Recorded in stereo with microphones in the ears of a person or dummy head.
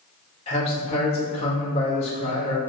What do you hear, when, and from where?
0.5 s a man speaking: 30° left (ahead or behind), 1.1 m